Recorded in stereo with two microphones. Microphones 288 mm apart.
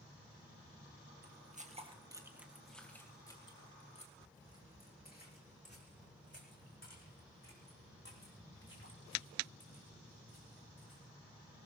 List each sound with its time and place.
1.2 s footsteps: 35° right (ahead or behind), 1.7 m; by 11.0 s 50° left (ahead or behind), 7.5 m